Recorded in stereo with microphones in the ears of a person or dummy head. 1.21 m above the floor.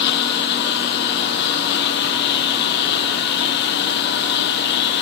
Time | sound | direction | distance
0.0 | a lawn mower | 70° left (ahead or behind) | ?